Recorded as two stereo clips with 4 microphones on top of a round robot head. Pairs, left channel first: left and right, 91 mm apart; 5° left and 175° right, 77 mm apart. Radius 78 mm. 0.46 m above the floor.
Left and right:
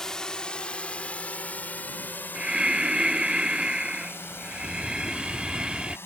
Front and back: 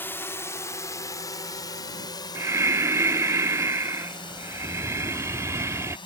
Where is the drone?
15° left; by 6.1 s 25° left.